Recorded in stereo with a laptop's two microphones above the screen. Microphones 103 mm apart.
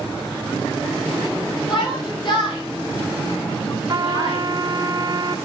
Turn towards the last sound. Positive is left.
turn(degrees=-40)  # may be behind; listen again after turning